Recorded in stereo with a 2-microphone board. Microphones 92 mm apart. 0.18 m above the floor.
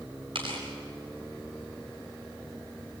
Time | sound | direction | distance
0.3 | tearing paper | 65° right (ahead or behind) | 8.5 m